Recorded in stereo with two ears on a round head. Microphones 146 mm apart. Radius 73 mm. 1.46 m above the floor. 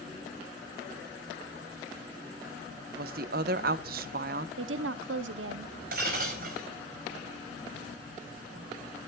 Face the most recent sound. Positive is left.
turn(degrees=-60)  # may be behind; listen again after turning